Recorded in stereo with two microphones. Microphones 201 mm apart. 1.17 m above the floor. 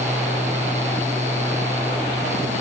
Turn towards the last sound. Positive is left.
No sound to turn to.